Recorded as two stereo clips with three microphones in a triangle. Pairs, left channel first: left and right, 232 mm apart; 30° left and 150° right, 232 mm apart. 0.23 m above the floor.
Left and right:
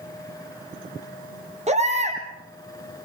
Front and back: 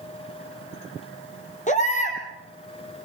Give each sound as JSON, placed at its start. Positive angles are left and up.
{"t": 1.7, "sound": "a baby crying", "azimuth_deg": -30, "distance_m": 4.0}